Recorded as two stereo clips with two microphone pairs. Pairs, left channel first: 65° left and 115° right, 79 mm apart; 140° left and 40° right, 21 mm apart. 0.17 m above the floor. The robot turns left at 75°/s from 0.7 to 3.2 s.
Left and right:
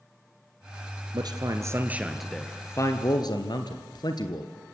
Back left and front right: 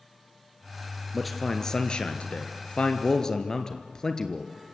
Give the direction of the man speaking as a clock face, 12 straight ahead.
4 o'clock.